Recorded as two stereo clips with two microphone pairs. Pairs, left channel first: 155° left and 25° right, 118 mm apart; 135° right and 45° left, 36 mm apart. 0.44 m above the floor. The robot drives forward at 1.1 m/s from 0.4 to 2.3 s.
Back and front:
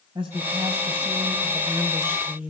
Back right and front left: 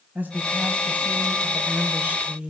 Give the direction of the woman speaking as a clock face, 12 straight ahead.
12 o'clock.